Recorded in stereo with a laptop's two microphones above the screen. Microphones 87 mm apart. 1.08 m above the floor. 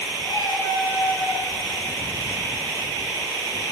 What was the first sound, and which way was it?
A cat meowing, 60° left (ahead or behind).